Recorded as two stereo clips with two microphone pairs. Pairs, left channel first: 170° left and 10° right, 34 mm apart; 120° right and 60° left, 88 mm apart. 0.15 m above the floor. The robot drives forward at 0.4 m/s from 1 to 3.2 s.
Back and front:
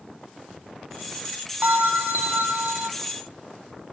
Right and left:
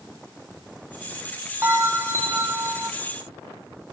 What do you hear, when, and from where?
1.6 s a bell: straight ahead, 1.5 m